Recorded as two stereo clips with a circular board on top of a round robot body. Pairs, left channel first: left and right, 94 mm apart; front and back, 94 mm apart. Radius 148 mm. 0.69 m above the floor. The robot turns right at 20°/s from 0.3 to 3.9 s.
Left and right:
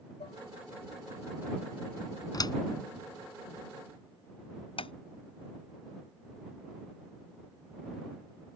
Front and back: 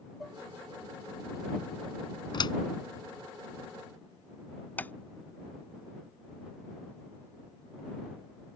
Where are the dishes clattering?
90° left; by 0.4 s 95° left.